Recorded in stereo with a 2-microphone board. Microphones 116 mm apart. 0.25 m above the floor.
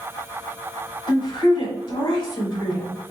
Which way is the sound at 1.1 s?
45° left (ahead or behind).